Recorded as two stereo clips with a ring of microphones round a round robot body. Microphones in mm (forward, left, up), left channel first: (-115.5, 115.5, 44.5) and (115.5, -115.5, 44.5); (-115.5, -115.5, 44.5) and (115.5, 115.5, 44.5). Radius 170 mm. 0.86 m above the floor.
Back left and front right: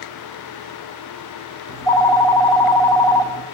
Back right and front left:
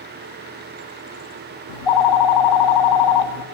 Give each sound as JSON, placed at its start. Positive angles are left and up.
{"t": 1.7, "sound": "a phone ringing", "azimuth_deg": -145, "distance_m": 1.4}